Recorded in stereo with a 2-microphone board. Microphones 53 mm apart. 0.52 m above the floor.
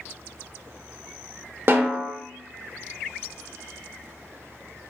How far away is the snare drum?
About 0.6 m.